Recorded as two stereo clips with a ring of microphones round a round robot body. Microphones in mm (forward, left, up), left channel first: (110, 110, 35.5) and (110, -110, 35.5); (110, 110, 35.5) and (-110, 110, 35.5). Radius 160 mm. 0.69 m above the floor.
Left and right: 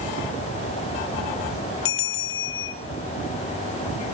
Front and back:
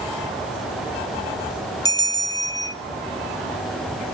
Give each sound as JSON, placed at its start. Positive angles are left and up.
{"t": 1.9, "sound": "a bell", "azimuth_deg": 75, "distance_m": 1.1}